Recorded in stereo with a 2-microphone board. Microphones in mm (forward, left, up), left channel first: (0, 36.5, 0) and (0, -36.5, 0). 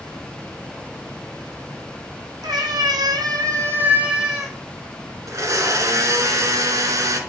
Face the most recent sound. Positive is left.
turn(degrees=-50)  # may be behind; listen again after turning